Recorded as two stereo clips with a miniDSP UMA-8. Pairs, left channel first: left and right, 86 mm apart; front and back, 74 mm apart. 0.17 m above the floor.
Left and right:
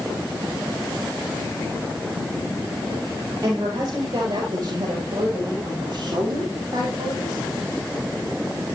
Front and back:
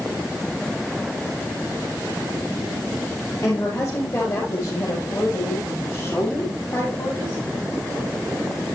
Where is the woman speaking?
40° right, 5.5 m; by 7.4 s 50° right, 7.5 m.